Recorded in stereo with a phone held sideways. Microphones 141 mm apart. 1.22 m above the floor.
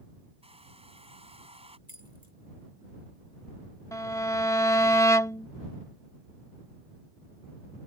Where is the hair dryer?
45° right (ahead or behind).